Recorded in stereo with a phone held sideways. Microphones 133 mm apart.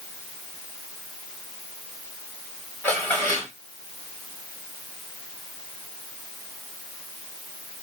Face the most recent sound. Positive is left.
turn(degrees=15)  # may be behind; listen again after turning